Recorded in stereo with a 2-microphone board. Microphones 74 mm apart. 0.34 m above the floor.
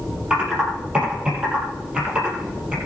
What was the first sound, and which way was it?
Typing on a keyboard, 15° right (ahead or behind).